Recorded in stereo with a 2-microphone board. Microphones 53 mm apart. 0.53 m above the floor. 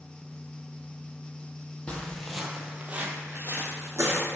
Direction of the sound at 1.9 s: 20° left (ahead or behind).